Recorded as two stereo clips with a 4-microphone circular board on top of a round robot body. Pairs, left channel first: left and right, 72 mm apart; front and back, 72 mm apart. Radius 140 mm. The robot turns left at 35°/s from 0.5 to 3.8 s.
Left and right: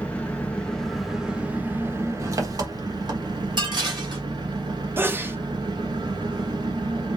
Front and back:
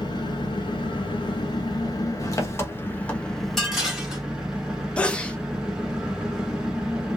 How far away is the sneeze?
About 0.9 m.